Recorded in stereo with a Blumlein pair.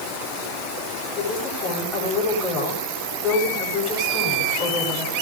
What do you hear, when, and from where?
1.1 s a woman speaking: 30° left, 9.5 m